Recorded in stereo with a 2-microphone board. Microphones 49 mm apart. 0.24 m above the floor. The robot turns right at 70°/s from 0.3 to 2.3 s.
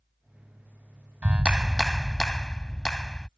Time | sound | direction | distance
1.2 | a clap | 50° right | ?